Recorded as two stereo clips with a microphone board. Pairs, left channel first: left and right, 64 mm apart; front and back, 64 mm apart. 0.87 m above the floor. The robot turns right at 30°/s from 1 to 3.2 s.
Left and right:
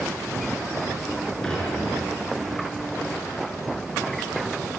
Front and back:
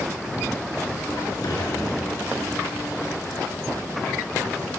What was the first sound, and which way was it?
Dishes clattering, 10° left.